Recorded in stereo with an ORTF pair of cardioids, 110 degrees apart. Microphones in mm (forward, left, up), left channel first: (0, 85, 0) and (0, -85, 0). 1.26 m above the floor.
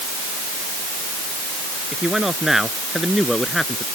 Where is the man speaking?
5° right; by 3.9 s straight ahead.